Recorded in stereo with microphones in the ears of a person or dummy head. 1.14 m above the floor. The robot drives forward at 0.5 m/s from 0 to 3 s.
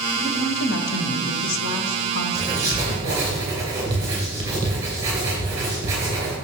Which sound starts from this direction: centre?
Writing, at 2.4 s.